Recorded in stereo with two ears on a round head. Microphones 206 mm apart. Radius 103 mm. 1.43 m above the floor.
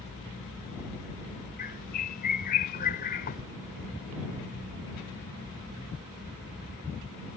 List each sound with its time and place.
1.6 s a bird: 40° left (ahead or behind)